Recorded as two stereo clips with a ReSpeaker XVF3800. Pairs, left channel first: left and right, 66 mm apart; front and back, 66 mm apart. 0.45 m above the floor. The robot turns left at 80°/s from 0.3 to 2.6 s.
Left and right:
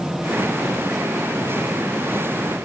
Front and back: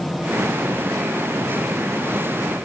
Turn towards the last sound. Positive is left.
No sound to turn to.